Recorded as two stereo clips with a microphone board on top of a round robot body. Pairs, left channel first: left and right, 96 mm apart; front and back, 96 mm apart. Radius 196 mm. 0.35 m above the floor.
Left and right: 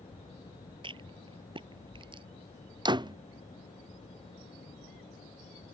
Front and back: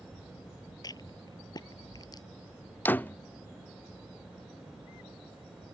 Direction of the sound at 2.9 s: 70° right.